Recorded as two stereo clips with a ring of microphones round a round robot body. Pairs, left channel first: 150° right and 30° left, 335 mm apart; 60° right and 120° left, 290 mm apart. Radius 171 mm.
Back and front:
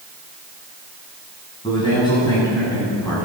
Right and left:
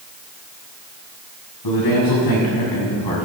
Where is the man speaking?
75° right, 6.5 m; by 3.3 s 70° right, 7.5 m.